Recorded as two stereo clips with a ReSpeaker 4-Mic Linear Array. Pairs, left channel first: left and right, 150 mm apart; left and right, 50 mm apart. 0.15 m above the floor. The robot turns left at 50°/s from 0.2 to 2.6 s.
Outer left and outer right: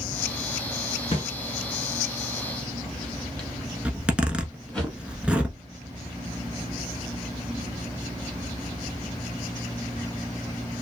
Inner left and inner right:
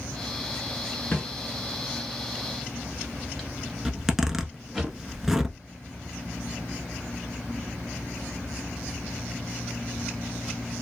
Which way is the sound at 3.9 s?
10° right (ahead or behind).